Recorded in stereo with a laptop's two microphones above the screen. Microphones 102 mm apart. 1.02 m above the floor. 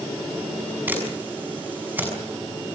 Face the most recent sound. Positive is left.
turn(degrees=-15)  # may be behind; listen again after turning